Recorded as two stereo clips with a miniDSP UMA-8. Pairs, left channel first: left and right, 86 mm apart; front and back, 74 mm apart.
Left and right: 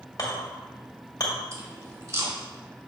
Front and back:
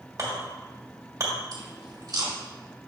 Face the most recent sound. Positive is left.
turn(degrees=-145)